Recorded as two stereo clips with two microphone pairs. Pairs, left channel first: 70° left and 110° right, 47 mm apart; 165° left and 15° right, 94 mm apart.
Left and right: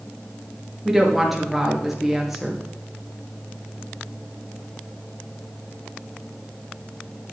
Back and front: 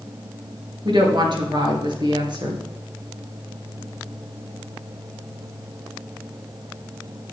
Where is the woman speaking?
25° right, 2.5 m.